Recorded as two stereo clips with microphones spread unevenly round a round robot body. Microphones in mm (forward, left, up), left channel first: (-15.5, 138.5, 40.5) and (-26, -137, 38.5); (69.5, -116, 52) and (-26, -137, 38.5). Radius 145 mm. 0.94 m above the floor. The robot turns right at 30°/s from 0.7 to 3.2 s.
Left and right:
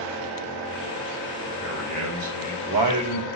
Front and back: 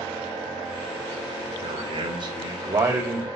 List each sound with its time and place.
1.6 s a man speaking: 145° right, 3 m; by 3.3 s 100° right, 3 m